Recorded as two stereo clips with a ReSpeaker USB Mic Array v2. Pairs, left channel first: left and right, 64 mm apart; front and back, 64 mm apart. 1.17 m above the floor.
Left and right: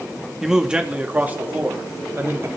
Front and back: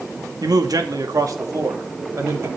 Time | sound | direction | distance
0.4 | a man speaking | 175° right | 2.5 m